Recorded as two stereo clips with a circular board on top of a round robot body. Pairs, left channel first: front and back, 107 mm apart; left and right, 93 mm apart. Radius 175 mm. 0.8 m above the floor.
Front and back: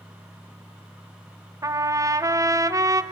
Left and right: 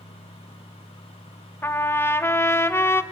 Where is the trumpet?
140° left, 1.0 m.